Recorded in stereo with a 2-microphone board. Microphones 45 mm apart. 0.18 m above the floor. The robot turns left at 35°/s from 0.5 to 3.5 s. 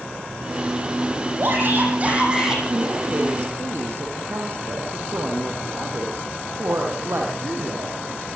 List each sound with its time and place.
1.4 s a shout: 125° right, 7.5 m; by 2.6 s 170° right, 7.5 m
2.7 s a woman speaking: 80° right, 6.5 m; by 8.3 s 60° right (ahead or behind), 6.5 m